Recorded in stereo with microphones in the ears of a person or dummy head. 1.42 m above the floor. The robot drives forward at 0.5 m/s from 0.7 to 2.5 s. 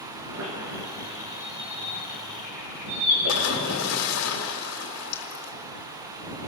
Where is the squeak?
70° right (ahead or behind), 7 m; by 4.0 s 60° right (ahead or behind), 7.5 m.